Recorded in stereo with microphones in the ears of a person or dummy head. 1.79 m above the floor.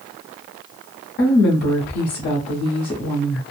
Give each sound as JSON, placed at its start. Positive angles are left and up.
{"t": 1.2, "sound": "a woman speaking", "side_deg": 50, "distance_m": 0.9}